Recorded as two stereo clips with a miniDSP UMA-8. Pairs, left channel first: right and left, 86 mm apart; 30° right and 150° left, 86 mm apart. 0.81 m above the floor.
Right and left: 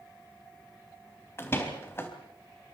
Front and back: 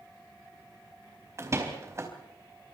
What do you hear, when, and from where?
1.4 s a door slam: 150° right, 4 m